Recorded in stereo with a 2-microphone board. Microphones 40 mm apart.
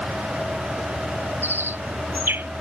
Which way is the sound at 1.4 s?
65° right (ahead or behind).